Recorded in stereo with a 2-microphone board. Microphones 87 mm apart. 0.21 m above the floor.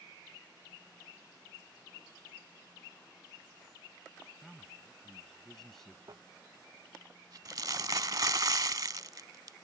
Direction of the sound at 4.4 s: 5° left (ahead or behind).